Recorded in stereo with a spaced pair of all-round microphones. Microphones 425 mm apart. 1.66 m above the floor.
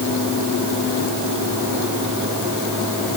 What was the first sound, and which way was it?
Only background noise.